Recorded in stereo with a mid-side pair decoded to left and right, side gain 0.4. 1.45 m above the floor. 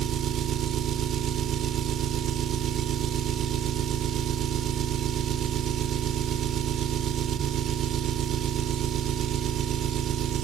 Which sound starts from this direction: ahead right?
An engine running, at 0.0 s.